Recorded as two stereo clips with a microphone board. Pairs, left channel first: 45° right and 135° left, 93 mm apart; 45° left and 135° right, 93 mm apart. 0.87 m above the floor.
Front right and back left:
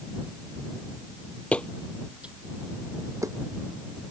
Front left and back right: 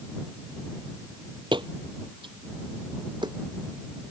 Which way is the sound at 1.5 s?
120° right.